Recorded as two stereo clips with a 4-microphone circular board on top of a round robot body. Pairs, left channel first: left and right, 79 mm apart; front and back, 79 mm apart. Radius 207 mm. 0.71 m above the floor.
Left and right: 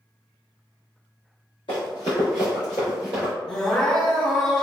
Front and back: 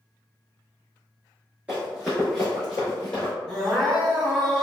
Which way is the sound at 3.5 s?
85° left.